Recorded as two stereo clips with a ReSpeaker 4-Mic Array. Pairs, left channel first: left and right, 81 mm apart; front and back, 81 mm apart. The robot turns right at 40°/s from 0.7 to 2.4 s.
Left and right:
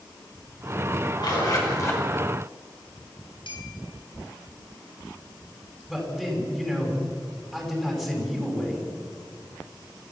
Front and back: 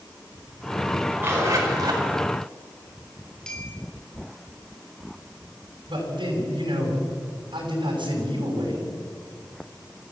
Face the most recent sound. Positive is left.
turn(degrees=175)